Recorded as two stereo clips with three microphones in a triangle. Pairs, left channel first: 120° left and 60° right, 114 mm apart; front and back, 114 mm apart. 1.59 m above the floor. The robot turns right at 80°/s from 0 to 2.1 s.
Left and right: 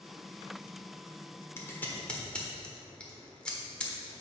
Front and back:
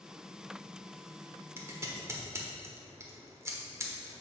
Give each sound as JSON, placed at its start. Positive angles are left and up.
{"t": 1.6, "sound": "scissors", "azimuth_deg": 145, "distance_m": 1.3}